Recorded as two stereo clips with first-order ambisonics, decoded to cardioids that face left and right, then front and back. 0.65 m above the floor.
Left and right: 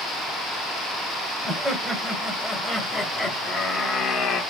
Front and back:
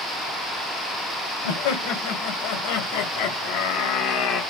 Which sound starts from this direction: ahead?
Laughter, at 1.4 s.